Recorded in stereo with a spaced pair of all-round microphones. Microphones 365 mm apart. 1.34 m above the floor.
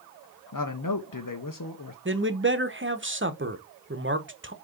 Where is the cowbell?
I don't hear a cowbell.